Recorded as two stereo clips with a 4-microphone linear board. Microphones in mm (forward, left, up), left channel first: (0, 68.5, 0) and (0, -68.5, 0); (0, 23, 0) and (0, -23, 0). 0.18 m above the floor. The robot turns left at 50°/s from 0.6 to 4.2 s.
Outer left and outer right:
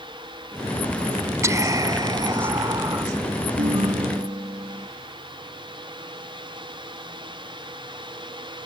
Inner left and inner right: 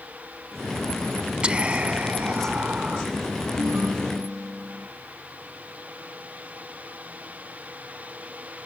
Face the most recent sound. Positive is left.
turn(degrees=-155)